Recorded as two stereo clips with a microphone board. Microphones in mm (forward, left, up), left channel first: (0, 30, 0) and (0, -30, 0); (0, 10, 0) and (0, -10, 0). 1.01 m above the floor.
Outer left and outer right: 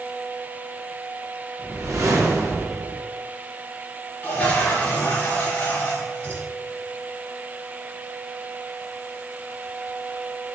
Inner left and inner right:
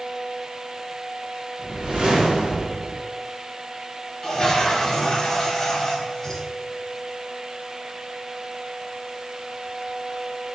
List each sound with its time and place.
1.6 s a whoosh: 55° right (ahead or behind), 1.1 m
4.2 s a toilet flushing: 25° left (ahead or behind), 1.1 m